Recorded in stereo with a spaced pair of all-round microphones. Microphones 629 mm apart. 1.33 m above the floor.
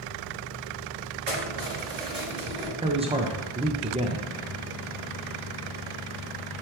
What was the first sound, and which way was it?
Keys jangling, 60° right (ahead or behind).